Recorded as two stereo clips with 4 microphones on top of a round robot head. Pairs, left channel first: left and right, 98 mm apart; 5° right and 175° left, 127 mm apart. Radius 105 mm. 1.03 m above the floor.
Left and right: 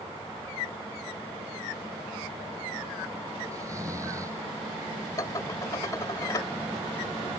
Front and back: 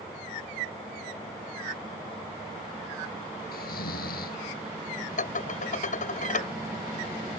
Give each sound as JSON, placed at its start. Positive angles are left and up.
{"t": 3.5, "sound": "snoring", "azimuth_deg": -20}
{"t": 5.2, "sound": "dishes clattering", "azimuth_deg": 20}